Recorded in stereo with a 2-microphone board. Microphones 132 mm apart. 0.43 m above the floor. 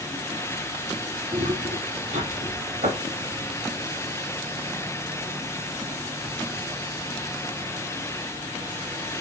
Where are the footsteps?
55° right (ahead or behind), 2 m; by 3.4 s 70° right (ahead or behind), 5 m.